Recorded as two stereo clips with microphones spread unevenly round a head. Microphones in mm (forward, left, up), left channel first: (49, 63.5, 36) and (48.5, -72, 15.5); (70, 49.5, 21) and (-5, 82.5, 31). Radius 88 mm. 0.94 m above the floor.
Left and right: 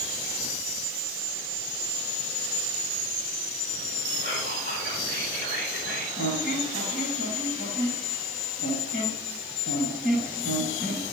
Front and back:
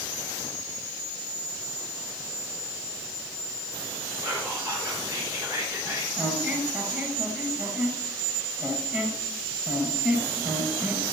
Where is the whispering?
115° left, 3.5 m.